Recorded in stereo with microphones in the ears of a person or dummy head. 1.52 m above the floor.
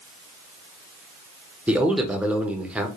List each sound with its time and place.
1.7 s a man speaking: 5° right (ahead or behind), 0.6 m